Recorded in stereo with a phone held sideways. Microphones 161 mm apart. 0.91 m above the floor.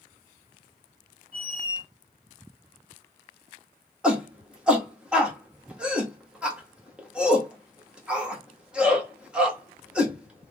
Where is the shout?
5° right (ahead or behind), 1.3 m.